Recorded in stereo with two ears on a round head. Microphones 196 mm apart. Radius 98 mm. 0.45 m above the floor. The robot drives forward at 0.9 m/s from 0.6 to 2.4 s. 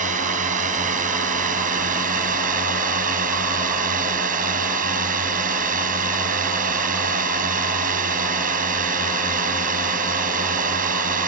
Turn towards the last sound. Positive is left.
turn(degrees=-40)  # may be behind; listen again after turning